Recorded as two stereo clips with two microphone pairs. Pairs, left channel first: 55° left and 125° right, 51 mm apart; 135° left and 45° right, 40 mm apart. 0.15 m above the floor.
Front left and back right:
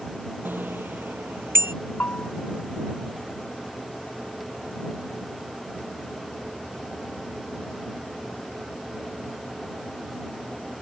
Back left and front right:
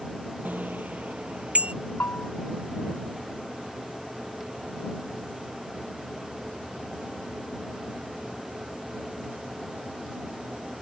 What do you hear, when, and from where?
0.5 s a bicycle bell: 85° right; by 1.7 s 100° right
2.0 s a bell: 105° left